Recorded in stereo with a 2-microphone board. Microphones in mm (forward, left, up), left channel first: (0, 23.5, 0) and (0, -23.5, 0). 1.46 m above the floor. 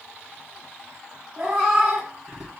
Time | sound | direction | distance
1.4 | a cat meowing | 15° right (ahead or behind) | 1.8 m